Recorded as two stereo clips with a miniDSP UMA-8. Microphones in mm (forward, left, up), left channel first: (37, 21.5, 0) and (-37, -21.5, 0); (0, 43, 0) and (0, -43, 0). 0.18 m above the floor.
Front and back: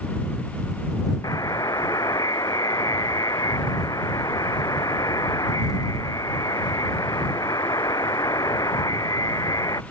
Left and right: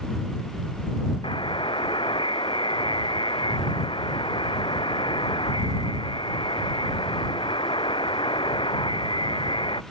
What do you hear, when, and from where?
1.2 s a buzzer: 75° left